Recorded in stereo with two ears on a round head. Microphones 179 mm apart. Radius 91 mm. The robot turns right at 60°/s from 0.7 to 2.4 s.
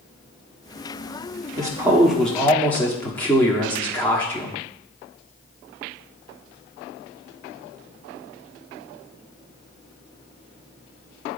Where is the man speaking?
35° right, 1.2 m; by 4.6 s 15° left, 1.2 m.